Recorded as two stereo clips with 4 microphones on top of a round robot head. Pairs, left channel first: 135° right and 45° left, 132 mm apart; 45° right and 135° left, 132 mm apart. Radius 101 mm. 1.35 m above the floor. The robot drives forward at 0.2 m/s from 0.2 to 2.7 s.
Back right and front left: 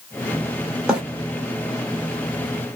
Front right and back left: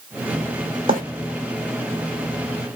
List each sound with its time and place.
0.9 s a bird: 130° left, 1.1 m